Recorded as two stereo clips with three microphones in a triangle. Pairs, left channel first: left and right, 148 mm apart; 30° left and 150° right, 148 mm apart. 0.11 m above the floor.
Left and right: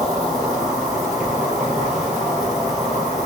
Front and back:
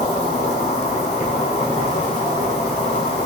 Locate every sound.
0.0 s an insect: 5° right, 1.6 m